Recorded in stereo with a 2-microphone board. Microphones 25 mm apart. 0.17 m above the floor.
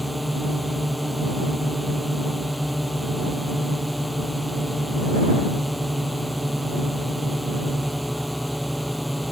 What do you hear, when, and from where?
0.0 s a drone: centre (ahead or behind)